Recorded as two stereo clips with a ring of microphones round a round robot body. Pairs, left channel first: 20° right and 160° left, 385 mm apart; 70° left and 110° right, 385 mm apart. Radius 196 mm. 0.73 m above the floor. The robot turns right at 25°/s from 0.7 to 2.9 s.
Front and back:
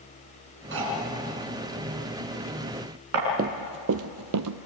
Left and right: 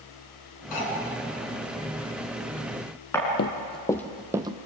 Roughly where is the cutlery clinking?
Left.